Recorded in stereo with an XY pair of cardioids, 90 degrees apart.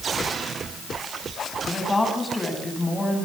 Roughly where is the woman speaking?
Ahead.